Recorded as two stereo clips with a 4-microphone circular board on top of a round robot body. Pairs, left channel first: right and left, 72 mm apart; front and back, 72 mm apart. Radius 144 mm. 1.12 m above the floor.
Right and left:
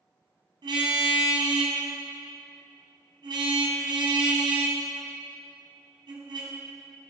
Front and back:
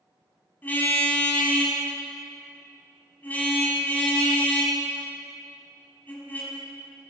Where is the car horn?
70° left, 5 m.